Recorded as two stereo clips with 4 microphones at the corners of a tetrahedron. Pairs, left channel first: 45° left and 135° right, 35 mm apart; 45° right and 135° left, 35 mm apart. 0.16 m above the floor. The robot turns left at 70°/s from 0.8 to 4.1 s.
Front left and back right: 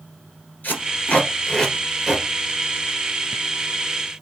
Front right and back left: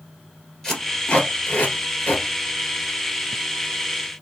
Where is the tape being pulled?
25° left, 1.8 m; by 2.2 s 75° right, 1.8 m.